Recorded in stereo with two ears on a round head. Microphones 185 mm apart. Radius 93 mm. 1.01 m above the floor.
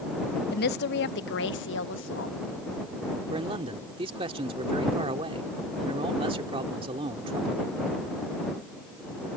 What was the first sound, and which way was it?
A woman speaking, 50° left (ahead or behind).